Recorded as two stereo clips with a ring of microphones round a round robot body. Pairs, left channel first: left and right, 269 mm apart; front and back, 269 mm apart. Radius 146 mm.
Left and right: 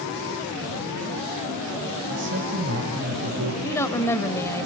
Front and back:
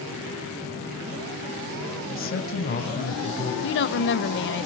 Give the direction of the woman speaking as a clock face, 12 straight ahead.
12 o'clock.